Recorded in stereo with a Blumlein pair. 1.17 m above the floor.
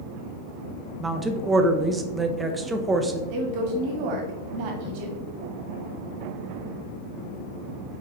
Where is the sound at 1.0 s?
15° right, 0.8 m.